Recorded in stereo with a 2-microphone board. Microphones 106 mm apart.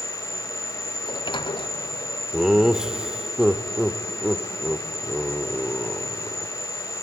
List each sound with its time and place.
0.0 s an insect: 75° left (ahead or behind), 3 m
1.0 s a sliding door: 45° left (ahead or behind), 0.6 m
2.3 s laughter: 5° right (ahead or behind), 0.9 m